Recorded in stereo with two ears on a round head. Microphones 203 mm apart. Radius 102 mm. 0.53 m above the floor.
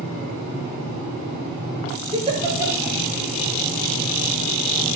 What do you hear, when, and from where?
2.1 s a giggle: 25° right (ahead or behind), 2.5 m